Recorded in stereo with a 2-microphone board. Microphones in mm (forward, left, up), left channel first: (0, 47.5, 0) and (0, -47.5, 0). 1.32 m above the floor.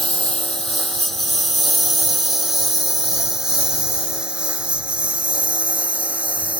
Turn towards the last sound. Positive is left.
turn(degrees=-15)  # may be behind; listen again after turning